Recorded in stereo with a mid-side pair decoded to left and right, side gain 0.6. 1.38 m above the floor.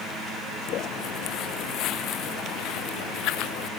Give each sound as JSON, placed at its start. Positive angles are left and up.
{"t": 0.7, "sound": "footsteps", "azimuth_deg": 55}